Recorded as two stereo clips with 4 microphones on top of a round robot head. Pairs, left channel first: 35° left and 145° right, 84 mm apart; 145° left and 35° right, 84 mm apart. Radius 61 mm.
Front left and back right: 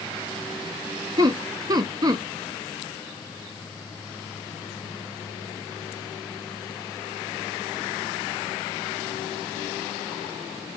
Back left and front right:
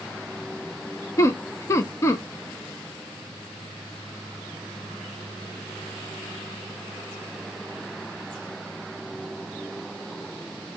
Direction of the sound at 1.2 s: 170° right.